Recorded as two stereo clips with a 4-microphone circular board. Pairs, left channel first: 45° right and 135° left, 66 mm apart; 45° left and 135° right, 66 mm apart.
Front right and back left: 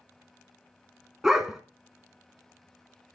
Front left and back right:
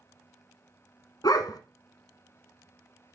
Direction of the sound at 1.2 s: 50° left.